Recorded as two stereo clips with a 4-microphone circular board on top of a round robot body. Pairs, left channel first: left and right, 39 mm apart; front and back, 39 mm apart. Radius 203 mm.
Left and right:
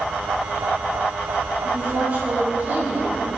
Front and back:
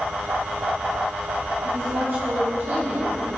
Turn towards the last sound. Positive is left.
turn(degrees=-150)